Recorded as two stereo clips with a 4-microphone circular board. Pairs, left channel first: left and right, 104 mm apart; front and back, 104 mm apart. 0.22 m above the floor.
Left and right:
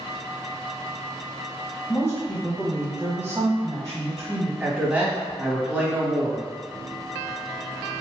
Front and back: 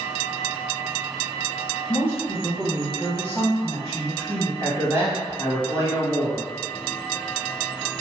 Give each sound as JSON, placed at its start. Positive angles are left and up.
{"t": 1.9, "sound": "a woman speaking", "azimuth_deg": 50, "distance_m": 1.6}
{"t": 4.6, "sound": "a man speaking", "azimuth_deg": -155, "distance_m": 1.1}